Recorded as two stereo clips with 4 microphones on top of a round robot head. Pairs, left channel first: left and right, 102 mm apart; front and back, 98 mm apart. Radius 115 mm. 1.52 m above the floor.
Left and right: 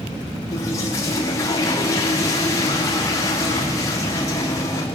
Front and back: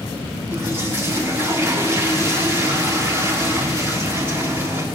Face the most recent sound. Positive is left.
turn(degrees=130)